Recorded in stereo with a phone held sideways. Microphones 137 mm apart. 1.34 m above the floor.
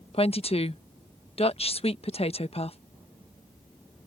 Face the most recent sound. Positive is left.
turn(degrees=45)  # may be behind; listen again after turning